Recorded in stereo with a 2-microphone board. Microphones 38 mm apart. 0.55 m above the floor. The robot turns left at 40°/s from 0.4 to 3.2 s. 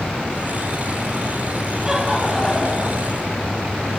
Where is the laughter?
165° right, 4 m; by 3.1 s 145° left, 4 m.